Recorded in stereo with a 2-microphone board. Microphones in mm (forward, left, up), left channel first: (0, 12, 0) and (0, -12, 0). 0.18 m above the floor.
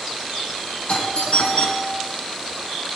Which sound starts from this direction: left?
A doorbell, at 0.9 s.